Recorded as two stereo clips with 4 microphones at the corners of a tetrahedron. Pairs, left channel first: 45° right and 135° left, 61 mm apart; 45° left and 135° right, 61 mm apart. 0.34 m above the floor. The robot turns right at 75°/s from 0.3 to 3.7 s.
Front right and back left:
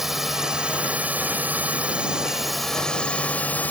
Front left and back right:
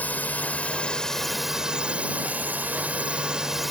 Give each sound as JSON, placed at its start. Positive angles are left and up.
{"t": 0.0, "sound": "a drone", "azimuth_deg": 55}